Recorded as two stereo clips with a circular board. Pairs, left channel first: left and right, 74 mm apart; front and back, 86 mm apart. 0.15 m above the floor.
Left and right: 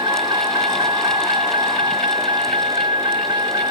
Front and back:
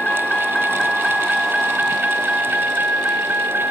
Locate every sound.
0.0 s a vehicle: 80° right; by 3.7 s 115° right